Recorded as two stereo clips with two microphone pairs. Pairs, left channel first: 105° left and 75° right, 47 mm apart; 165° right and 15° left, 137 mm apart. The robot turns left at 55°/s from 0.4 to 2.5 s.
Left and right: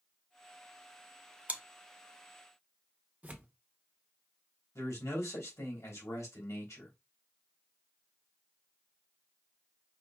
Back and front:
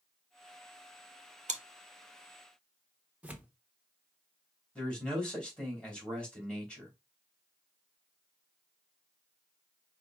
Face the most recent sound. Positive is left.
turn(degrees=110)